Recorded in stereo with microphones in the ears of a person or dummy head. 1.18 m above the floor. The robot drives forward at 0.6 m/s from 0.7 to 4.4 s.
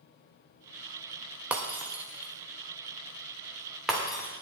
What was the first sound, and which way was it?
Breaking glass, 5° right (ahead or behind).